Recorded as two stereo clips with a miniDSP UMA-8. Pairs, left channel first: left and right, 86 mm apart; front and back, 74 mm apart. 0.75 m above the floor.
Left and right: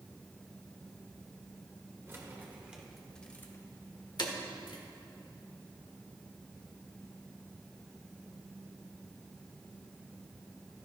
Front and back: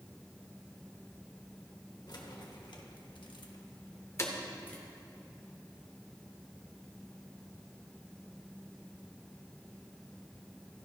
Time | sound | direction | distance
2.1 | keys jangling | 30° right | 1.4 m